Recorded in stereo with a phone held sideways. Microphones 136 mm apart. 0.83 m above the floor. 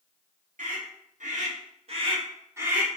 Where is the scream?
75° right (ahead or behind), 1.7 m; by 2.9 s 10° right (ahead or behind), 0.9 m.